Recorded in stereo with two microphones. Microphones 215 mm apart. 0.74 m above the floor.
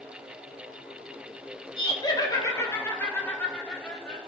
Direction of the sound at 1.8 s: 25° left (ahead or behind).